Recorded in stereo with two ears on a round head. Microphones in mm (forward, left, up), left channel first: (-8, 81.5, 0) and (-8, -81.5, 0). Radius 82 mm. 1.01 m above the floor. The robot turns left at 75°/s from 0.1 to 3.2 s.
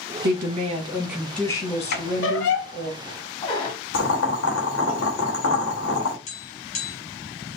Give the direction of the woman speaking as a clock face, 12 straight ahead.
3 o'clock.